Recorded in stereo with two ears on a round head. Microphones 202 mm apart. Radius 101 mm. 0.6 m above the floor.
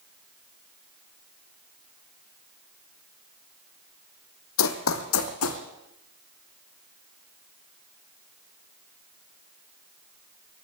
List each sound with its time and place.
4.6 s running footsteps: 65° left (ahead or behind), 1.5 m; by 5.6 s 70° left (ahead or behind), 2.5 m